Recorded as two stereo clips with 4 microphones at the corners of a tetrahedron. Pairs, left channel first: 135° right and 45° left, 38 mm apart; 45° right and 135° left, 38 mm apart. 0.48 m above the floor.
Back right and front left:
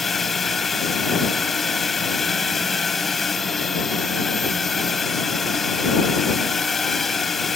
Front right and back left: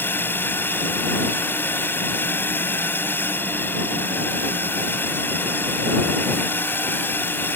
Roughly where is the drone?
Ahead right.